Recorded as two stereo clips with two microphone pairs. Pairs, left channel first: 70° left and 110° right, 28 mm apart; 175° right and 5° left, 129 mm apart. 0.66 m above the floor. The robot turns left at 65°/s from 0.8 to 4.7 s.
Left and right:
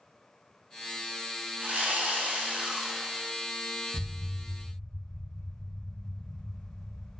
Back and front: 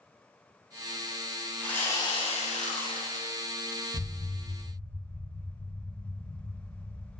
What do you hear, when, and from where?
1.6 s sawing: 90° right, 0.6 m; by 3.3 s 165° left, 0.6 m
3.9 s an explosion: 155° right, 1.7 m; by 7.2 s 155° left, 1.7 m